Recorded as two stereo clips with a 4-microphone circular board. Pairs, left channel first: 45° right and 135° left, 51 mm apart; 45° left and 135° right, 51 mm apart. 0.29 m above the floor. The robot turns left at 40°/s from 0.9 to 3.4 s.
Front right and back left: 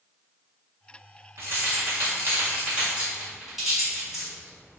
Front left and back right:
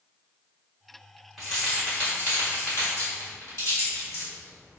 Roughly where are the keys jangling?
Behind left.